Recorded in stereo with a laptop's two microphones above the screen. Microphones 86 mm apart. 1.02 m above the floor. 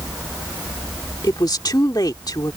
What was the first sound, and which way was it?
A woman speaking, 50° left (ahead or behind).